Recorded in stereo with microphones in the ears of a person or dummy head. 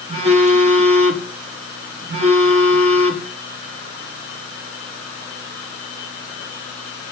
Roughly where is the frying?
No frying in this recording.